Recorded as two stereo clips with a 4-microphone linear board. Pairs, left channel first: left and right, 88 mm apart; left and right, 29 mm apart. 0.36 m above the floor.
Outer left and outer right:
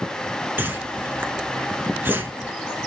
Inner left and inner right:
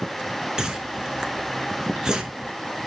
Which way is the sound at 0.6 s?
20° right (ahead or behind).